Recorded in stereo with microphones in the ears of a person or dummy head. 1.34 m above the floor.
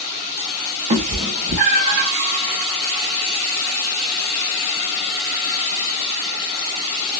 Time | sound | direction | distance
0.9 | a cat meowing | 35° right (ahead or behind) | 0.7 m